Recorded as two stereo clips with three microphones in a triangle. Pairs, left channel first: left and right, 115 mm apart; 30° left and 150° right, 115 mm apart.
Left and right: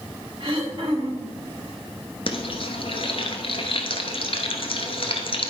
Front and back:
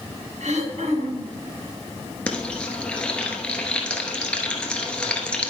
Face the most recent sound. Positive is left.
turn(degrees=110)